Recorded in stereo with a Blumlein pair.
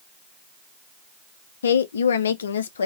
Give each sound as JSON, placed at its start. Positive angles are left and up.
{"t": 1.6, "sound": "a woman speaking", "azimuth_deg": 65, "distance_m": 0.6}